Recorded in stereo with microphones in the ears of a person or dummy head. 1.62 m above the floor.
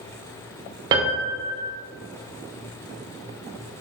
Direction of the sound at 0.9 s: 25° right (ahead or behind).